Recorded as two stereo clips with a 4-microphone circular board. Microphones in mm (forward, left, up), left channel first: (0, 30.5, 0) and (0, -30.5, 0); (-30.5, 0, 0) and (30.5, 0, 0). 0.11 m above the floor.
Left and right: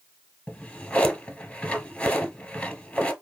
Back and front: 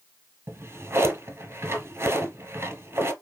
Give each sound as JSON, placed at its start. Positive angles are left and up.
{"t": 0.5, "sound": "a drawer", "azimuth_deg": 25, "distance_m": 0.8}